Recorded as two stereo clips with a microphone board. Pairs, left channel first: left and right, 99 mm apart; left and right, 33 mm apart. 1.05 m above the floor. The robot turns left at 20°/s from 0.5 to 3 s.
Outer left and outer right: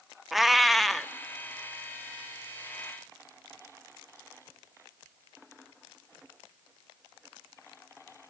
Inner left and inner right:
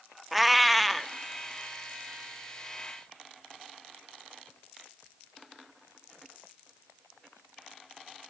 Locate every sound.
0.3 s a cat meowing: centre (ahead or behind), 0.5 m